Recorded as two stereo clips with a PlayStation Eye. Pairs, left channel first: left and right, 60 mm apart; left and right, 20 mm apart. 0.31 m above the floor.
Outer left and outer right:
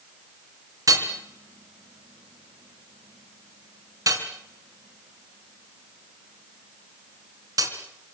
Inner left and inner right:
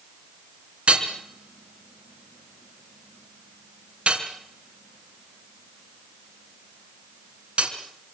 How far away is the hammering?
About 3.5 m.